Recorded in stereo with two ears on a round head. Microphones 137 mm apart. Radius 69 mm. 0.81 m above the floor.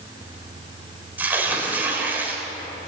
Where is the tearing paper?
10° right (ahead or behind), 4 m.